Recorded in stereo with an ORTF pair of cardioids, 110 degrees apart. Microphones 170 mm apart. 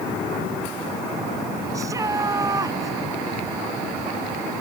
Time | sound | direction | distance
1.7 | a shout | 20° right | ?